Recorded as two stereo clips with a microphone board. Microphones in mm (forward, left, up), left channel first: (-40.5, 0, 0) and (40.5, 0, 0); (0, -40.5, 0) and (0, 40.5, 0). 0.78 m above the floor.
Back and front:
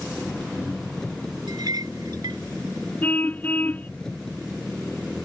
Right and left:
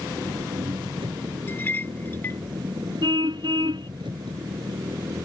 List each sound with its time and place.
0.0 s an engine running: 100° left
1.5 s a clink: 30° right
3.0 s a car horn: 110° left